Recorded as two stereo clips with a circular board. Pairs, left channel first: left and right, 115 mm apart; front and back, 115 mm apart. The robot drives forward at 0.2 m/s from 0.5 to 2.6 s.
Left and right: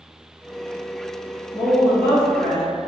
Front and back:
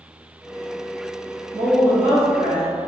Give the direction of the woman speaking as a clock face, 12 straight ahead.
7 o'clock.